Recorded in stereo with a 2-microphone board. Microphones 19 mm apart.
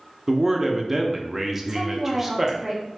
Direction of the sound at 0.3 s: 15° right (ahead or behind).